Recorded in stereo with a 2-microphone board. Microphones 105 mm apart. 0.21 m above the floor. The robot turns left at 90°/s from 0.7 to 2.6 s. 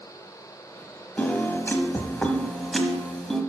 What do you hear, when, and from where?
1.2 s a piano: 15° left (ahead or behind), 1.0 m; by 3.4 s 5° left (ahead or behind), 1.0 m